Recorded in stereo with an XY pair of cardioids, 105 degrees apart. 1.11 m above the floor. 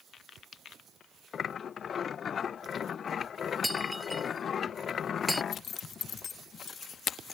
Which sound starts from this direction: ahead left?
A zipper, at 5.5 s.